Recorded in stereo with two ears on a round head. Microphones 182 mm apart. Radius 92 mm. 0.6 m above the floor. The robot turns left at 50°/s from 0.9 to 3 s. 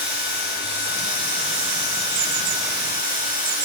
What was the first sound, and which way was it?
Running water, 30° right.